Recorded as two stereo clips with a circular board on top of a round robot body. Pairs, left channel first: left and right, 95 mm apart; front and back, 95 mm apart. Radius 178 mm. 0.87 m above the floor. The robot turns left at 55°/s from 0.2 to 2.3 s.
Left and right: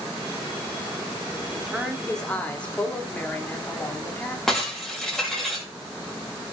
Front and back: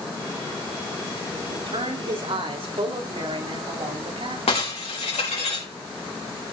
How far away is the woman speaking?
About 3 m.